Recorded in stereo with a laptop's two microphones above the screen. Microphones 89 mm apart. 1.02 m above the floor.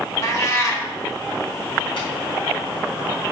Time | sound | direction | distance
0.2 | a cat meowing | 35° left (ahead or behind) | 1.5 m
2.0 | tapping | 75° left (ahead or behind) | 4 m